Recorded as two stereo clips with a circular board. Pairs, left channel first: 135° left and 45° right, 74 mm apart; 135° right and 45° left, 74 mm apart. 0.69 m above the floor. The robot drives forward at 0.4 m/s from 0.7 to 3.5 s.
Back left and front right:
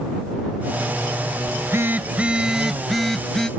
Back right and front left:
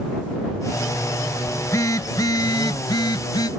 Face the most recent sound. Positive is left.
turn(degrees=-145)